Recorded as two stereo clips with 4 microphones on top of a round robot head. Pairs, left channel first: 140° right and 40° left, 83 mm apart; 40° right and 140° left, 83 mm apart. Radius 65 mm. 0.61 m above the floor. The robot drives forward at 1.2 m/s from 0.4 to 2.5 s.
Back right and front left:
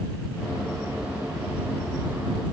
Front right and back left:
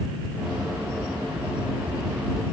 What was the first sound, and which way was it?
Only background noise.